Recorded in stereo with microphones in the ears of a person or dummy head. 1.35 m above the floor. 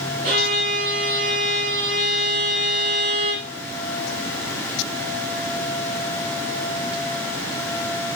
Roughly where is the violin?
Right.